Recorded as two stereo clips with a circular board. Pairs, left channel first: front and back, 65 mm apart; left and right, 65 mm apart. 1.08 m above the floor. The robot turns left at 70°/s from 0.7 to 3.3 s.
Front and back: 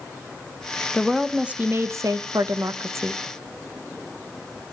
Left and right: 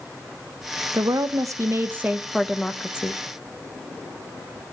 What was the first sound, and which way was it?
A woman speaking, 75° right.